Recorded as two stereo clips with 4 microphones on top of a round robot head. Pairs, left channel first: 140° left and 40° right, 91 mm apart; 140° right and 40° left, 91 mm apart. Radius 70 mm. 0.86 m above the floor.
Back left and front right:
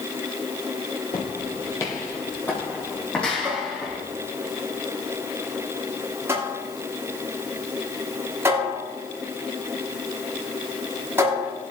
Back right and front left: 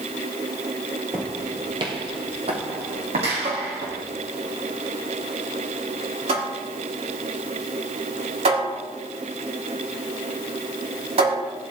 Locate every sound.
1.1 s footsteps: 105° left, 1.1 m; by 4.0 s 55° left, 3 m
3.4 s a cupboard door: 25° left, 5 m